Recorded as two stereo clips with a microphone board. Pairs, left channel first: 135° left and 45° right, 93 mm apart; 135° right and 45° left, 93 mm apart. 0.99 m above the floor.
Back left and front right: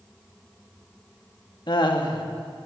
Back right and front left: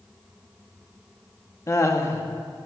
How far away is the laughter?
About 1.6 m.